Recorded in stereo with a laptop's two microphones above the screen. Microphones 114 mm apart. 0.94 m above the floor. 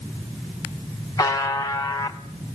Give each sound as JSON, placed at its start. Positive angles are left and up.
{"t": 1.2, "sound": "a buzzer", "side_deg": 30, "distance_m": 0.7}